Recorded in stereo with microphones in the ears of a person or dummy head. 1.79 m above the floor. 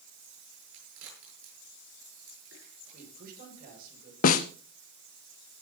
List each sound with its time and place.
0.7 s a crack: 70° right (ahead or behind), 9 m
2.9 s a man speaking: 50° right (ahead or behind), 6.5 m
4.2 s a snare drum: 45° left (ahead or behind), 0.6 m